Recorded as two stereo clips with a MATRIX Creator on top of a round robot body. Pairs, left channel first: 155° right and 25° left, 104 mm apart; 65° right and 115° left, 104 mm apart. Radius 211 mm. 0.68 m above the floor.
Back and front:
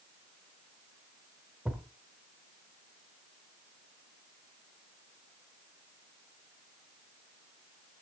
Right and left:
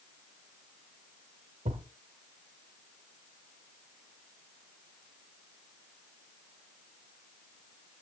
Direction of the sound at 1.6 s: 105° left.